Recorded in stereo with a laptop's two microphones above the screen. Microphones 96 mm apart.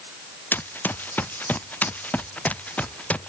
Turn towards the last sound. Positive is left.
turn(degrees=15)  # may be behind; listen again after turning